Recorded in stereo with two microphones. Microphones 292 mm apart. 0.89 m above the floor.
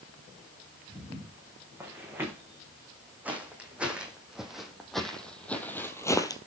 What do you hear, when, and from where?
0.9 s footsteps: 10° right (ahead or behind), 4.5 m; by 6.4 s 15° left (ahead or behind), 1.1 m